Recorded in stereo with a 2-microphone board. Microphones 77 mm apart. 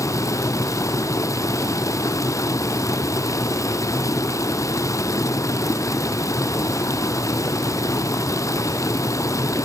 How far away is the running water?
About 1.0 m.